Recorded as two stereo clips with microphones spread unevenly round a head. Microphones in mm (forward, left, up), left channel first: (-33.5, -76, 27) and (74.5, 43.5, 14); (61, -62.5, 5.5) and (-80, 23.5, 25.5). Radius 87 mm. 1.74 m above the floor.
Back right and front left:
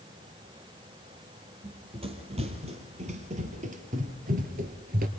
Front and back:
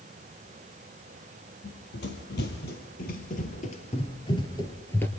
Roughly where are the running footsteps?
Ahead.